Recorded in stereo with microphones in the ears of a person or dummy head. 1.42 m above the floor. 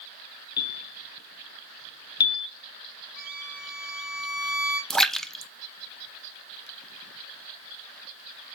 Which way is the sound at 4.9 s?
5° left (ahead or behind).